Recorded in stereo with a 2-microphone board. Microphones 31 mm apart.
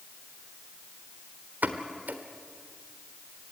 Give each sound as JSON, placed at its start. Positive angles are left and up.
{"t": 1.6, "sound": "a pop", "side_deg": -70, "distance_m": 1.4}